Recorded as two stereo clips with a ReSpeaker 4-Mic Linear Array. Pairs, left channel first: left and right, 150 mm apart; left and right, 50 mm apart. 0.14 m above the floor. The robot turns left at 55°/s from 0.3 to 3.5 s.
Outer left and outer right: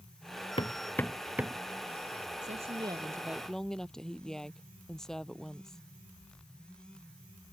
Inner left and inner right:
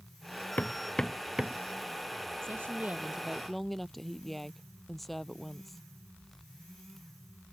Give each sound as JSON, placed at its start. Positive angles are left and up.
{"t": 0.6, "sound": "hammering", "side_deg": 35}
{"t": 2.4, "sound": "a woman speaking", "azimuth_deg": -125}